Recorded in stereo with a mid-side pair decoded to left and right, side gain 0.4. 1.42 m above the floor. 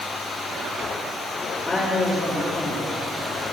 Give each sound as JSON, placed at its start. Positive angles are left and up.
{"t": 1.6, "sound": "a woman speaking", "azimuth_deg": 25, "distance_m": 3.0}